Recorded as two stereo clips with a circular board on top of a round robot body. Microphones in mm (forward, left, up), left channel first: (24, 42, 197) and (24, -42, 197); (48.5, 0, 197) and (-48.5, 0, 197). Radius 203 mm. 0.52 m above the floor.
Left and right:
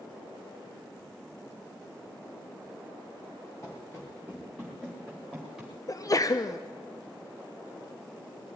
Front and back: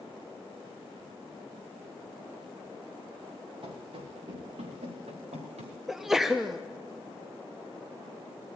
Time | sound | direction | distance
3.6 | running footsteps | 145° left | 4 m
5.9 | a sneeze | 95° left | 0.9 m